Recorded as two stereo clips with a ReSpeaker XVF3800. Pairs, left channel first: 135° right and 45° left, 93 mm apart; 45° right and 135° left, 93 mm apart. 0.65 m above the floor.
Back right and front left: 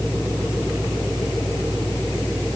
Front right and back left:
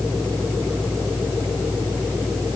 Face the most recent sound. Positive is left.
No sound to turn to.